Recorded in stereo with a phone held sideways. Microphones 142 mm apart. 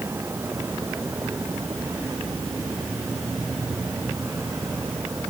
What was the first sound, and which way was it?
A vehicle, 15° right (ahead or behind).